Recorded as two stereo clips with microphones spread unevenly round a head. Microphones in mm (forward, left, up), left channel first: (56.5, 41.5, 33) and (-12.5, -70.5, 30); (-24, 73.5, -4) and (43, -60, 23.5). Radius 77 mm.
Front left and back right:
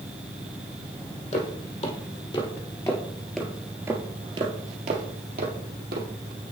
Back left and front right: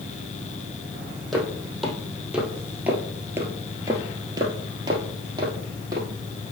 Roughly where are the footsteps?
Ahead.